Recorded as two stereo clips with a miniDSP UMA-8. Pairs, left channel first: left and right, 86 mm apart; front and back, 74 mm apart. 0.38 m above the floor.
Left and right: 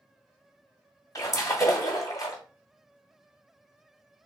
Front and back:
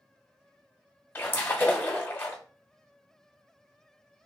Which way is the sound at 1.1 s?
55° left.